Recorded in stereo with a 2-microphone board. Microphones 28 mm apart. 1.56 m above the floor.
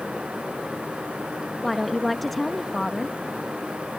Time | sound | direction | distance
1.6 | a woman speaking | 5° left (ahead or behind) | ?